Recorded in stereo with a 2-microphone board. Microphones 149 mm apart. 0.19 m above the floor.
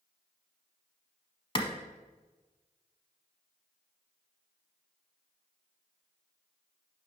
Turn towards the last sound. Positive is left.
turn(degrees=40)  # may be behind; listen again after turning